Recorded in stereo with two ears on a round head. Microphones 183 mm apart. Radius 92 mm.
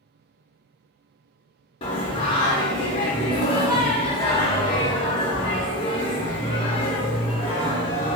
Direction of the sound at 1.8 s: 25° left (ahead or behind).